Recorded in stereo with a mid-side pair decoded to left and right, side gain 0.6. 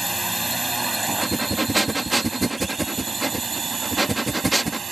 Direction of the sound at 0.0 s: Straight ahead.